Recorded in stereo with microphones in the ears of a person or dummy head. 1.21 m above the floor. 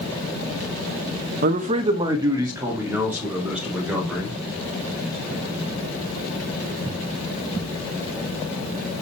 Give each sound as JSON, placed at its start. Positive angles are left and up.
{"t": 1.4, "sound": "a man speaking", "side_deg": -50, "distance_m": 1.0}